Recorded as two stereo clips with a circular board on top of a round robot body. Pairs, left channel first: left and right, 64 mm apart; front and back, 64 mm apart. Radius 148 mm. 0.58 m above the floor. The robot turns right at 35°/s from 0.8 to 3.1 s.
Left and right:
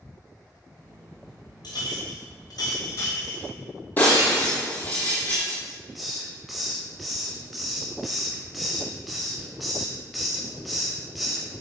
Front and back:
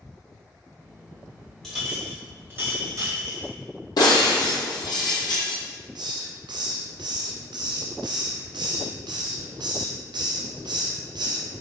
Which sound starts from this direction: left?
A clink, at 1.6 s.